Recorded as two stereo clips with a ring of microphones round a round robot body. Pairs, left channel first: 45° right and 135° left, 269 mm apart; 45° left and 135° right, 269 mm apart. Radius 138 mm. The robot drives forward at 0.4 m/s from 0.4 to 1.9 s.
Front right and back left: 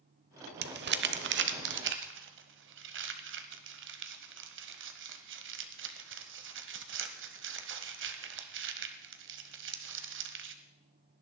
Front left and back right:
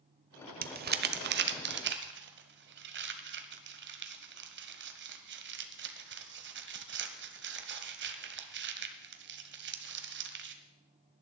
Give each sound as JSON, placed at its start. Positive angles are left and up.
{"t": 0.6, "sound": "crumpling", "azimuth_deg": 175, "distance_m": 0.7}